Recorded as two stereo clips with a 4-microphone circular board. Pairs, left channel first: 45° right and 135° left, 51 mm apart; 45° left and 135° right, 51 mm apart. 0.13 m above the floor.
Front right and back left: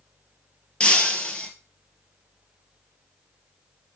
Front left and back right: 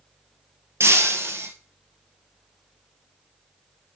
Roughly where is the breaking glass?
Behind right.